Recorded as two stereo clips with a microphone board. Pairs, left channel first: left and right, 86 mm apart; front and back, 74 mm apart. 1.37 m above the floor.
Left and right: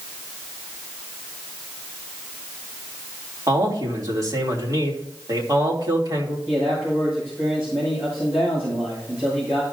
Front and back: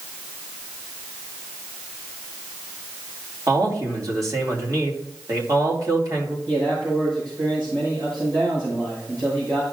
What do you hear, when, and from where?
3.5 s a man speaking: 140° right, 2.5 m
6.5 s a man speaking: 155° right, 6 m